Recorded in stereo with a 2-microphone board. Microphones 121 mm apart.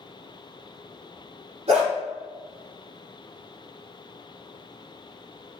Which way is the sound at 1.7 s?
60° right (ahead or behind).